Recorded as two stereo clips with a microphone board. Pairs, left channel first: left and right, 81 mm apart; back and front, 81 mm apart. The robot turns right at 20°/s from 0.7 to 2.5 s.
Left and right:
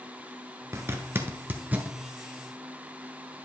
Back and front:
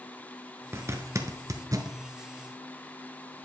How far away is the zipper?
About 1.0 m.